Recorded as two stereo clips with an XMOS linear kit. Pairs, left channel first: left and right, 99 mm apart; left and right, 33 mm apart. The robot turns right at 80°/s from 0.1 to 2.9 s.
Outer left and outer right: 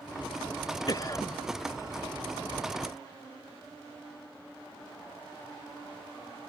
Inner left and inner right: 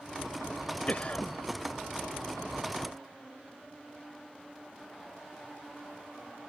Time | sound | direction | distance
0.9 | a cough | 105° left | ?